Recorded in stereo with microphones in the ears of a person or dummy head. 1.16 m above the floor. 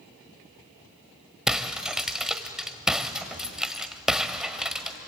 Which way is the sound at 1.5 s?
5° right (ahead or behind).